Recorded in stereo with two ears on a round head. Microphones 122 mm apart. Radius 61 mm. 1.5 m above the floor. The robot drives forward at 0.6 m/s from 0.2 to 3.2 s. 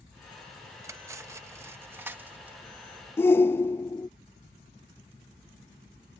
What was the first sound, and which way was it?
Cutlery clinking, 20° right (ahead or behind).